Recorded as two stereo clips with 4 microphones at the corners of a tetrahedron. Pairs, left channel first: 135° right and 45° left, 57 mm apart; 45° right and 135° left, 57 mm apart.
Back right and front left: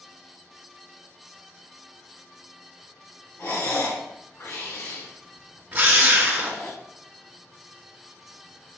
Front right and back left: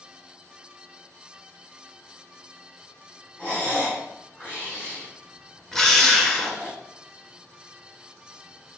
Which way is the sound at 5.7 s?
30° left.